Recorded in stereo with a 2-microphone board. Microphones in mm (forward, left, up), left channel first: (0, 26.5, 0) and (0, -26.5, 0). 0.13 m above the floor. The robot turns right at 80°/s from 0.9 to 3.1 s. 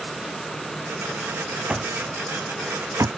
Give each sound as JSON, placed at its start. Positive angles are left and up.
{"t": 1.7, "sound": "an alarm clock", "side_deg": -10}